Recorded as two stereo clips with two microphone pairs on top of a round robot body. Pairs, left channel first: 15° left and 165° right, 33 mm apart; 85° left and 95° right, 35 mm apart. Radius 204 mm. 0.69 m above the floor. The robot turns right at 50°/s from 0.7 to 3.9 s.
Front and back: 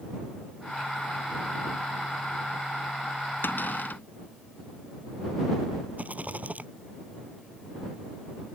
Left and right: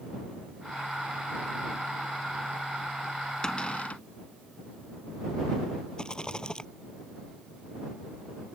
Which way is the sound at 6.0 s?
155° left.